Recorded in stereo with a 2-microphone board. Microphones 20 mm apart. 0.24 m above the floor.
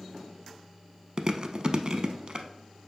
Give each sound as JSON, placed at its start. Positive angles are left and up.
{"t": 1.2, "sound": "chewing", "side_deg": -45, "distance_m": 0.6}